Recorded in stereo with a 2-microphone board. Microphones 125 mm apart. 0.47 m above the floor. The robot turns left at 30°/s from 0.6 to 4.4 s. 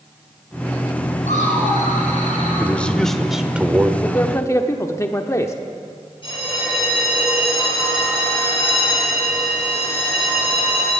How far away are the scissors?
I don't hear scissors.